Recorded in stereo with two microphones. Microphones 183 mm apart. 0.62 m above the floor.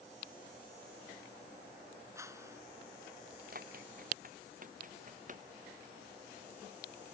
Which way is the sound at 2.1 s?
15° right (ahead or behind).